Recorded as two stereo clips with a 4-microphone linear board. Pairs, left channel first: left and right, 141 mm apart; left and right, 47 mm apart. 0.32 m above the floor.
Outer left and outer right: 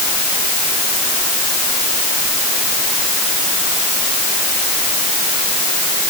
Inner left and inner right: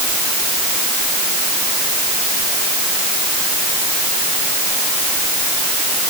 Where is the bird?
No bird in this recording.